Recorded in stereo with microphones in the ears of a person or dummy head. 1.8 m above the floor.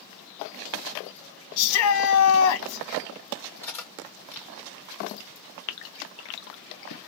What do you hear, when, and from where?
1.6 s a shout: 75° left (ahead or behind), 1.0 m
3.6 s cutlery clinking: 10° left (ahead or behind), 1.3 m
5.7 s a gasp: 60° left (ahead or behind), 0.7 m